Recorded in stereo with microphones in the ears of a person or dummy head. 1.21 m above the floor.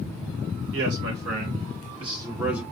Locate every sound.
0.7 s a man speaking: 60° right (ahead or behind), 1.2 m; by 2.6 s 5° right (ahead or behind), 0.9 m